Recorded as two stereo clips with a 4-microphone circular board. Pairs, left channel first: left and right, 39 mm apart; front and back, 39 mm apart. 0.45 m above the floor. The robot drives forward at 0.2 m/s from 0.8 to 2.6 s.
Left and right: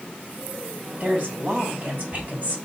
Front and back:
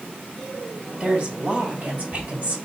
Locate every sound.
1.0 s a woman speaking: 125° right, 1.6 m; by 2.6 s 135° right, 1.8 m